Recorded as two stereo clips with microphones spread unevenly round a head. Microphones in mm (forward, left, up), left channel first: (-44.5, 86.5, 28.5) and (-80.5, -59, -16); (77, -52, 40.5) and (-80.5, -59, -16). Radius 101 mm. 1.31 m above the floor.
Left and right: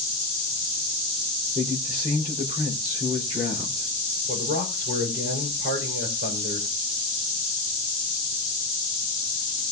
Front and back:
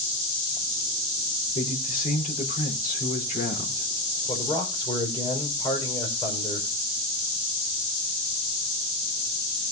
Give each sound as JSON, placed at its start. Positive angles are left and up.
{"t": 1.6, "sound": "a man speaking", "azimuth_deg": -35, "distance_m": 4.0}
{"t": 4.3, "sound": "a man speaking", "azimuth_deg": -60, "distance_m": 5.0}